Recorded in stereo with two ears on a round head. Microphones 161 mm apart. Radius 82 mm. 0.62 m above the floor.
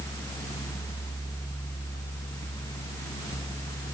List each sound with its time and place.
Only background noise.